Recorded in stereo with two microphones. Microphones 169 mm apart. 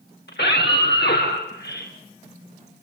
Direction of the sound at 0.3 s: 85° left.